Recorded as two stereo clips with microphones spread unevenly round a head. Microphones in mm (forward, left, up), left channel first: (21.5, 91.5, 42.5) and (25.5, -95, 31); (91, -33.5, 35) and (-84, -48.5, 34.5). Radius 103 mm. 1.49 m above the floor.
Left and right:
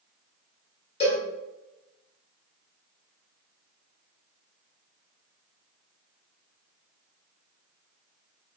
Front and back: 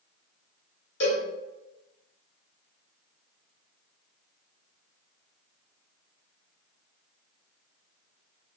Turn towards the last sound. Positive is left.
turn(degrees=40)